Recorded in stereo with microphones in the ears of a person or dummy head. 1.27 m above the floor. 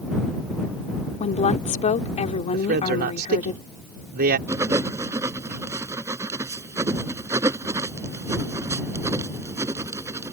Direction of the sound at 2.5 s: 50° right (ahead or behind).